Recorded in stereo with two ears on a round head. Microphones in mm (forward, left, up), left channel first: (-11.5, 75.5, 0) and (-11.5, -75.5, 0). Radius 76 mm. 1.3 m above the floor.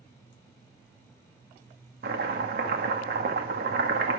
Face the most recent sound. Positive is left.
turn(degrees=-60)  # may be behind; listen again after turning